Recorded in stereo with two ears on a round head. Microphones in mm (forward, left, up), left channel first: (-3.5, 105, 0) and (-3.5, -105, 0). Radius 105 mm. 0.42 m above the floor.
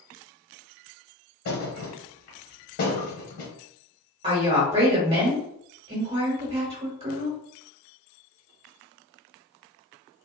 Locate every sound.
1.4 s a thud: 65° left (ahead or behind), 1.1 m
4.2 s a woman speaking: 25° right (ahead or behind), 1.3 m